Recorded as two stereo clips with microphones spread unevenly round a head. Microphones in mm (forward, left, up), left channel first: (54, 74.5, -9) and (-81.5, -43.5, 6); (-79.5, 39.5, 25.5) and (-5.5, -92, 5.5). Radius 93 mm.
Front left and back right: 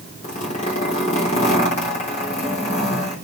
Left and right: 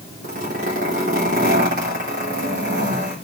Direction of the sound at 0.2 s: 15° right.